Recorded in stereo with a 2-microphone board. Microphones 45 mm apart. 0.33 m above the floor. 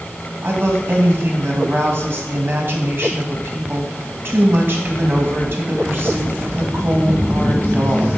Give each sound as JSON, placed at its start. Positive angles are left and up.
{"t": 0.4, "sound": "a woman speaking", "side_deg": -55, "distance_m": 2.0}